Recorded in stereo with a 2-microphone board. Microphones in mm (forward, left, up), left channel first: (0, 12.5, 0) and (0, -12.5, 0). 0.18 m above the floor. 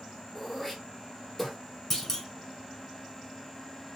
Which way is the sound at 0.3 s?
15° left (ahead or behind).